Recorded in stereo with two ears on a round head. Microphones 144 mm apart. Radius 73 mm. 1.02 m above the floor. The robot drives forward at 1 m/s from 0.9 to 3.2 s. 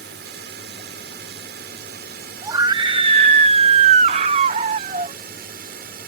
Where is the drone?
75° right (ahead or behind); by 6.1 s 70° right (ahead or behind).